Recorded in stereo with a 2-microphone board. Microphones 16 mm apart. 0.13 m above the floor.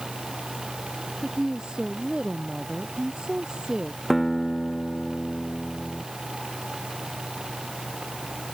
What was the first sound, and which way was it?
A woman speaking, 60° right (ahead or behind).